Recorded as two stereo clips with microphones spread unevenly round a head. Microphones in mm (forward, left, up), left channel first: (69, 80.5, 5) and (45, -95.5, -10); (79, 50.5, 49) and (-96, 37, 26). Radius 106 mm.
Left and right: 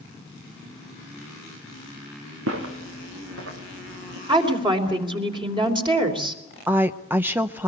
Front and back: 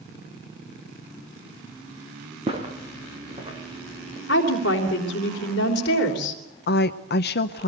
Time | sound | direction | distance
2.5 | footsteps | 105° right | 4 m
4.3 | a woman speaking | 35° right | 3.5 m
6.7 | a woman speaking | 20° right | 0.7 m